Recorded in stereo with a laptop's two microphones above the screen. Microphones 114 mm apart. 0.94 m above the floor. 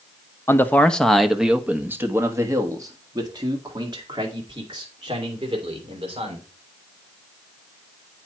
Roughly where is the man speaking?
Left.